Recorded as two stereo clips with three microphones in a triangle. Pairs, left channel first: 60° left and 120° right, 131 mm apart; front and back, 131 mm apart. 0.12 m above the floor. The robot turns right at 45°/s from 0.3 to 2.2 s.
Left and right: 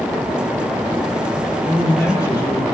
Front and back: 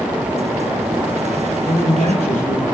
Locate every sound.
1.7 s a man speaking: 25° right, 4.5 m; by 2.6 s straight ahead, 4.5 m